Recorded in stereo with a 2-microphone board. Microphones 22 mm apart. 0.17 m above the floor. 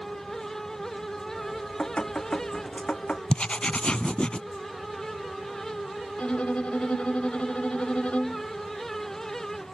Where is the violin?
75° left (ahead or behind).